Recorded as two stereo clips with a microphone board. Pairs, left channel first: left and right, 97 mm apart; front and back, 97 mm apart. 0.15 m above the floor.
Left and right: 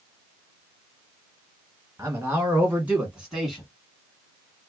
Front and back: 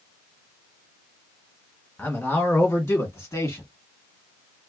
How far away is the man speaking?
About 1.8 m.